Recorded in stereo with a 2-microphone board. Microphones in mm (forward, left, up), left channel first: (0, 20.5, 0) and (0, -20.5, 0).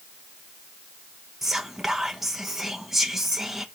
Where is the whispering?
10° right (ahead or behind), 0.8 m.